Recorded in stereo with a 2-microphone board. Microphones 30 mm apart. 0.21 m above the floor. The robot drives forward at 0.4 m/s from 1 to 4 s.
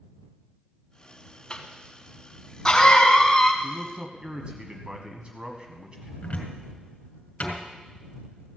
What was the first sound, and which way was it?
A cough, 30° left (ahead or behind).